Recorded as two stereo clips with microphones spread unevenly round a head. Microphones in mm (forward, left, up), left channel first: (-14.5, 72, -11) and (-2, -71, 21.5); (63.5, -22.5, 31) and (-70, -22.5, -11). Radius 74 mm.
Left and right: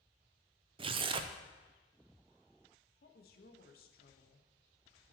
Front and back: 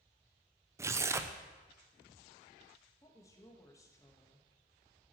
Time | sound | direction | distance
0.8 | tearing paper | 100° right | 0.5 m
3.0 | a woman speaking | 70° left | 1.1 m